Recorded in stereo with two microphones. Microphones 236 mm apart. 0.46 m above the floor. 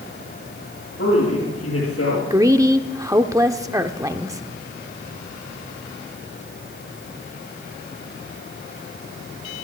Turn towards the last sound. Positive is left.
turn(degrees=-15)  # may be behind; listen again after turning